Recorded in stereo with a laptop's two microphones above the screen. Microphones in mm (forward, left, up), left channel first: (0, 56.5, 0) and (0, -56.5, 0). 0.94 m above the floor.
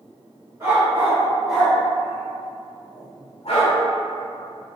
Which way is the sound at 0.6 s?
25° right (ahead or behind).